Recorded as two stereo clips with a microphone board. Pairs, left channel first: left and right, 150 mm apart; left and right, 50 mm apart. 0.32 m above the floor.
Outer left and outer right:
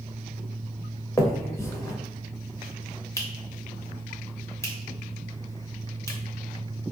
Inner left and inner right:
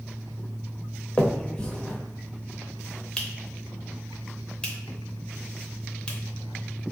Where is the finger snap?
20° left (ahead or behind), 0.6 m.